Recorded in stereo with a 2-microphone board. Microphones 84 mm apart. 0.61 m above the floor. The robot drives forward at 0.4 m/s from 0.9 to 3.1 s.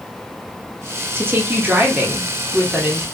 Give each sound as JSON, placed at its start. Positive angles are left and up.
{"t": 1.1, "sound": "a woman speaking", "side_deg": -25, "distance_m": 0.7}